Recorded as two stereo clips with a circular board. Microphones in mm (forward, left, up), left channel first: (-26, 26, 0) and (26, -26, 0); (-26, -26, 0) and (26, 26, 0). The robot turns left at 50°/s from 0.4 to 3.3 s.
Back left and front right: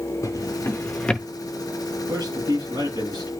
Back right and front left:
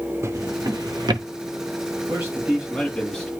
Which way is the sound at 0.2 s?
95° left.